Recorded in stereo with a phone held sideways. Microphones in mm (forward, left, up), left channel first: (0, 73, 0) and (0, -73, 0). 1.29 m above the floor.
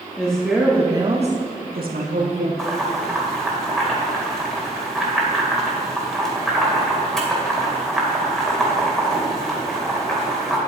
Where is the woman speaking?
10° left (ahead or behind), 2 m; by 2.5 s 65° right (ahead or behind), 2 m.